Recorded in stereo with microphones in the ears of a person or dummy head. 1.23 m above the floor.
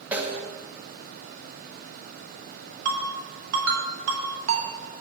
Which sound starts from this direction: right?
A ringtone, at 2.9 s.